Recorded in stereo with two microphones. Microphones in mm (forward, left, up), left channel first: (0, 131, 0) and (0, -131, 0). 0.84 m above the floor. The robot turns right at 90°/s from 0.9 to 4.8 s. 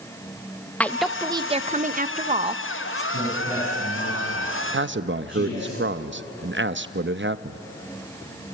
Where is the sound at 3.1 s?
50° right, 7.5 m; by 5.7 s 100° left, 7.5 m.